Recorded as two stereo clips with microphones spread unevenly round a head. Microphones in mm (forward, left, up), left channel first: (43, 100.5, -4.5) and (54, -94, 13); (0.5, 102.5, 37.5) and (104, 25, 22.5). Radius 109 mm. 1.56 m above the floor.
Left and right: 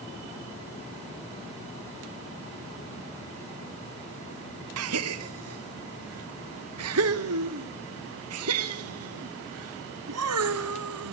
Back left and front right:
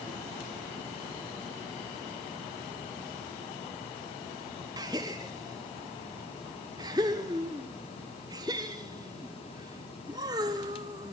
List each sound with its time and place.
4.8 s a gasp: 105° right, 1.1 m